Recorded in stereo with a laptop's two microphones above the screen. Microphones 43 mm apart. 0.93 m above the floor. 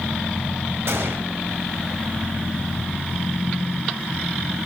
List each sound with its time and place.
0.9 s a gunshot: 70° right (ahead or behind), 2 m